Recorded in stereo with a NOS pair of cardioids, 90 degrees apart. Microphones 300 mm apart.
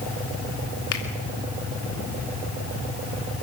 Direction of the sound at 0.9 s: 55° left.